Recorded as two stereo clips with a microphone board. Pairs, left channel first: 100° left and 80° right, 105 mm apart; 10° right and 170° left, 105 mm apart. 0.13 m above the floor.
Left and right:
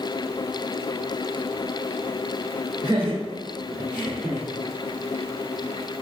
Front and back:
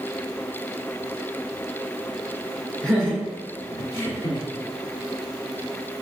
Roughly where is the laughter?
Right.